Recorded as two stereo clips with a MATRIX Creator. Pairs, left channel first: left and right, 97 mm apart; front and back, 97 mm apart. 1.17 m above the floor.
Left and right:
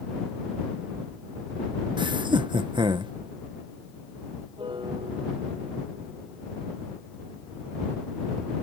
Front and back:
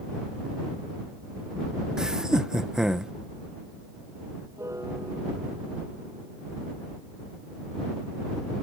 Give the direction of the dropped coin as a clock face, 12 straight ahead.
No dropped coin in this recording.